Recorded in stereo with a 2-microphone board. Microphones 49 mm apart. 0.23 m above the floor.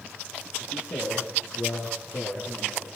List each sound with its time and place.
0.6 s a man speaking: 80° left, 9.5 m; by 3.0 s 65° left (ahead or behind), 8 m